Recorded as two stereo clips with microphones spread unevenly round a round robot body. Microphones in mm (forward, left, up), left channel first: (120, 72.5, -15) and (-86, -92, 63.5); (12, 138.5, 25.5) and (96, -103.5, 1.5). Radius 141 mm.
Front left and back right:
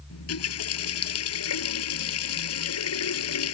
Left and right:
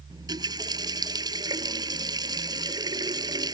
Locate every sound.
0.1 s a running tap: 5° left